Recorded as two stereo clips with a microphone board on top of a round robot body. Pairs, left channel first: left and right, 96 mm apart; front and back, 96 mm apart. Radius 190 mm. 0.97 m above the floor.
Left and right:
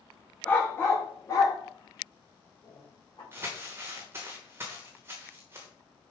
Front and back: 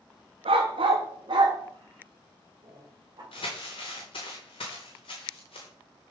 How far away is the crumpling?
About 1.0 m.